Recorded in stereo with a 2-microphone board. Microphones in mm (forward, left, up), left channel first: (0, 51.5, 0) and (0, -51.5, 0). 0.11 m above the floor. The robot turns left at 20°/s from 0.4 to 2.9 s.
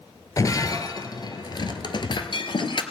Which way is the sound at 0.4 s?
35° left (ahead or behind).